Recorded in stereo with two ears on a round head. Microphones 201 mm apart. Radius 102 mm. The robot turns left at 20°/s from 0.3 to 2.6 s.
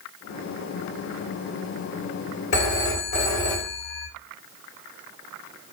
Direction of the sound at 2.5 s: 65° left (ahead or behind).